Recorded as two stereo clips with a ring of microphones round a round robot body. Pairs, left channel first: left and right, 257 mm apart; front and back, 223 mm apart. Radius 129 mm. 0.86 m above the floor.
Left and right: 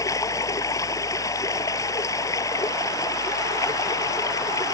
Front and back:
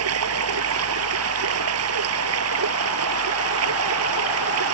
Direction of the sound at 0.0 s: 170° left.